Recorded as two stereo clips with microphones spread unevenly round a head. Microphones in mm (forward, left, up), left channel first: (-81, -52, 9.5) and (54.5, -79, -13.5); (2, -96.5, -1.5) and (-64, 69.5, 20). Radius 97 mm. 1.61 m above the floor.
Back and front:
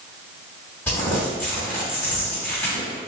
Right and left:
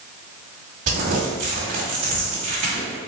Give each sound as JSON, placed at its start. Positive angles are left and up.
{"t": 0.9, "sound": "crumpling", "azimuth_deg": 100, "distance_m": 1.6}